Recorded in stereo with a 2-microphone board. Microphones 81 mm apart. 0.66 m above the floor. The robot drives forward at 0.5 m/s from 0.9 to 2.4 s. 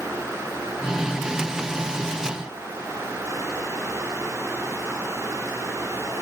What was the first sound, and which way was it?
Only background noise.